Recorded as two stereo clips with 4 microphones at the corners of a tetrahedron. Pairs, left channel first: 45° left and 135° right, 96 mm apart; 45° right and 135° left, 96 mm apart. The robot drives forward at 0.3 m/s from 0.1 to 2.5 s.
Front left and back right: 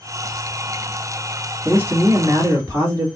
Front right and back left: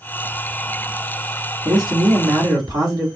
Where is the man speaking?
165° left, 1.7 m; by 3.1 s 170° left, 1.9 m.